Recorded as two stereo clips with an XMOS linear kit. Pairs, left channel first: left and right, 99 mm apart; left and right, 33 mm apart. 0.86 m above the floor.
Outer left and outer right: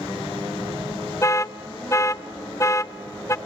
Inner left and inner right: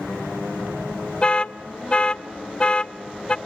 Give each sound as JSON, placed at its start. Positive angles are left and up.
{"t": 1.2, "sound": "an alarm", "side_deg": 30, "distance_m": 0.5}